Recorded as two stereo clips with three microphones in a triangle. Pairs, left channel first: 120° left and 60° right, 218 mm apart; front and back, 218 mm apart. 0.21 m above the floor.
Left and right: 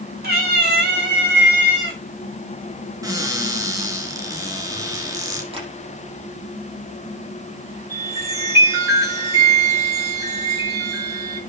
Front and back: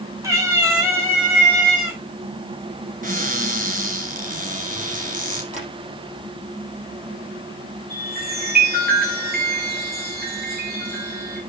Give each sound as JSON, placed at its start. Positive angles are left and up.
{"t": 0.2, "sound": "a cat meowing", "azimuth_deg": -105, "distance_m": 3.5}
{"t": 3.0, "sound": "a cupboard door", "azimuth_deg": -135, "distance_m": 4.0}
{"t": 5.5, "sound": "tapping", "azimuth_deg": -125, "distance_m": 5.5}
{"t": 7.9, "sound": "a chime", "azimuth_deg": -135, "distance_m": 6.5}